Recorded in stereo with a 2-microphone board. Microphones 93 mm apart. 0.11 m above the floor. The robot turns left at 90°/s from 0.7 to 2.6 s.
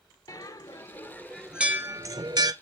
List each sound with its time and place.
0.3 s a bell: 45° left (ahead or behind), 0.5 m; by 2.5 s 50° right (ahead or behind), 0.5 m